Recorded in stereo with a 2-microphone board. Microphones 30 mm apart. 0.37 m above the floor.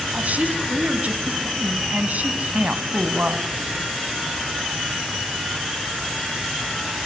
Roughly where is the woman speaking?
Right.